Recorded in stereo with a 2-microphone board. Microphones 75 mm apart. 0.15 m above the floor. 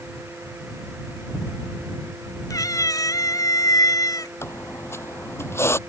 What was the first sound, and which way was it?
A cat meowing, 50° left (ahead or behind).